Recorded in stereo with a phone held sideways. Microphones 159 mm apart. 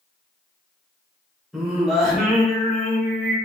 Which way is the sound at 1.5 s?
Centre (ahead or behind).